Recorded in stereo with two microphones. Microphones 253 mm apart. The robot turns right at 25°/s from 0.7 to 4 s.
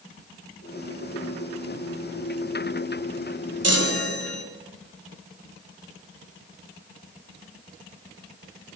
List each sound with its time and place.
3.6 s a chime: 75° right (ahead or behind), 1.8 m; by 4.4 s 65° right (ahead or behind), 1.8 m